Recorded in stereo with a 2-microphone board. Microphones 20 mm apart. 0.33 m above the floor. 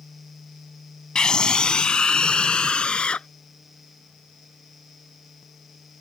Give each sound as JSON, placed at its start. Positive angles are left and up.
{"t": 1.1, "sound": "a scream", "side_deg": 35}